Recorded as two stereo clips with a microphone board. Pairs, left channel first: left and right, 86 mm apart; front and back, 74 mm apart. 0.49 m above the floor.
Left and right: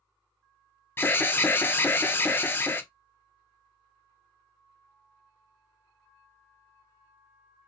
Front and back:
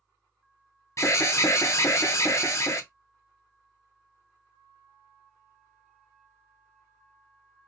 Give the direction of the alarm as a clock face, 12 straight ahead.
11 o'clock.